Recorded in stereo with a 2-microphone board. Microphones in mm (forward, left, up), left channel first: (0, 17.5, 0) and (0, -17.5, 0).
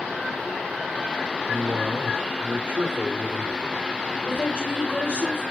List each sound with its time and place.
1.5 s a man speaking: 70° right (ahead or behind), 2.5 m
4.2 s a woman speaking: 60° left (ahead or behind), 3 m